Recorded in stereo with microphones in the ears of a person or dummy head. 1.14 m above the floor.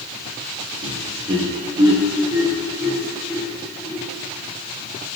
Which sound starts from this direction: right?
Laughter, at 0.8 s.